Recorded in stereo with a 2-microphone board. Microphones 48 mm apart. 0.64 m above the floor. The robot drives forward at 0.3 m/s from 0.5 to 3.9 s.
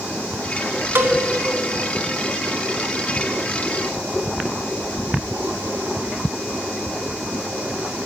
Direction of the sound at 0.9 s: 50° right (ahead or behind).